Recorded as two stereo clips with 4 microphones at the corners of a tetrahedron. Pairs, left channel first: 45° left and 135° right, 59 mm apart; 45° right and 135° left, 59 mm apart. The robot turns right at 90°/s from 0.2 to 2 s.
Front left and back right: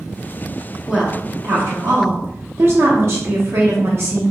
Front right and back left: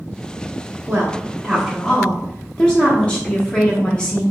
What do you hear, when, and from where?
0.9 s a woman speaking: 145° left, 0.9 m; by 4.2 s 115° right, 0.9 m